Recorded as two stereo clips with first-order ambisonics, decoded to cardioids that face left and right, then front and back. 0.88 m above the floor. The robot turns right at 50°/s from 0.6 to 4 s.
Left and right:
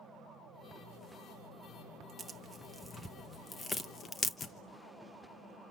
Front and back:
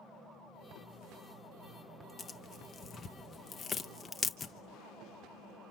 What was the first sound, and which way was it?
Tearing paper, 30° right.